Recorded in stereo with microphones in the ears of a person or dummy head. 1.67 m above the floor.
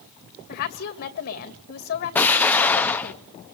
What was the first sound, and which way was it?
A woman speaking, 55° left (ahead or behind).